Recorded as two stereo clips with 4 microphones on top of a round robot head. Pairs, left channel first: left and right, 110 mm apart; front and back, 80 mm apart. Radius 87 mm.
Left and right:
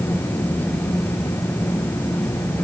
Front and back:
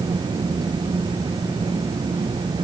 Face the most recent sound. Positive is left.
No sound to turn to.